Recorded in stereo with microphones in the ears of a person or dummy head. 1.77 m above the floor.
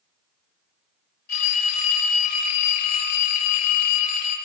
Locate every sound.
1.3 s a phone ringing: 50° left (ahead or behind), 2.5 m